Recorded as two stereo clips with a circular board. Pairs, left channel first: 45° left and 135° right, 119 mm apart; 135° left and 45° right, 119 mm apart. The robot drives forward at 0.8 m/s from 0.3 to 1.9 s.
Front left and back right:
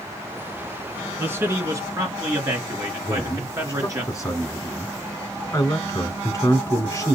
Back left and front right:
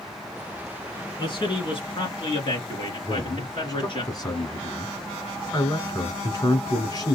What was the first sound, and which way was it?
A man speaking, 160° left.